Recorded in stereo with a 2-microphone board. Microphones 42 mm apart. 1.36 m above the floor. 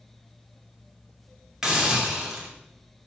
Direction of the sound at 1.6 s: 15° right (ahead or behind).